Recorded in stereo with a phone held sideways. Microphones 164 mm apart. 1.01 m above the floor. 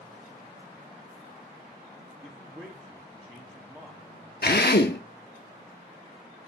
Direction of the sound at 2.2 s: 15° right (ahead or behind).